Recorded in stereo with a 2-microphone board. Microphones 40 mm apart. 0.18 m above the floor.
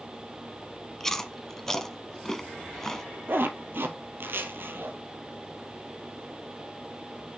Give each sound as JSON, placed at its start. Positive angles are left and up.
{"t": 1.0, "sound": "chewing", "side_deg": 10, "distance_m": 0.8}
{"t": 3.3, "sound": "a zipper", "side_deg": -65, "distance_m": 0.9}